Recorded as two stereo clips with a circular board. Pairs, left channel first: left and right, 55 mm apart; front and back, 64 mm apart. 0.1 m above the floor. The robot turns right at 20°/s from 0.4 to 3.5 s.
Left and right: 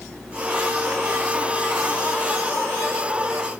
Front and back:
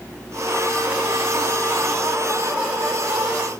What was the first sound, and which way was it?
Only background noise.